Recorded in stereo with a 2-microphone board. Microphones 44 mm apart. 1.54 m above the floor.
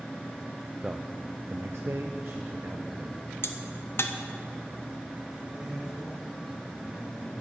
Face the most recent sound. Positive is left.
turn(degrees=-15)  # may be behind; listen again after turning